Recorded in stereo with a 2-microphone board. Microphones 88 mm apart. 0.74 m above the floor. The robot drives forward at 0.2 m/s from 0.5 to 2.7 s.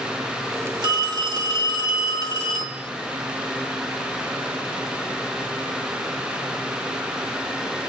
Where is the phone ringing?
50° right (ahead or behind), 2 m; by 2.9 s 45° right (ahead or behind), 2.5 m.